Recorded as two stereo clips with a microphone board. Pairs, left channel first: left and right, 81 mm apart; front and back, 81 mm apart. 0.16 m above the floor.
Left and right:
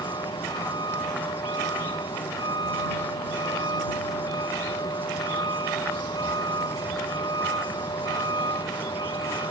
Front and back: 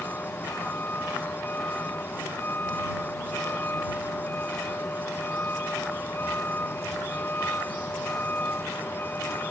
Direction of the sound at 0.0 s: 65° left.